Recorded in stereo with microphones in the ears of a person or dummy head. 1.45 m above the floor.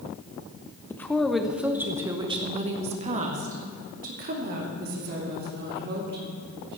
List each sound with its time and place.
0.9 s a woman speaking: 15° left (ahead or behind), 1.1 m; by 6.8 s 55° right (ahead or behind), 4 m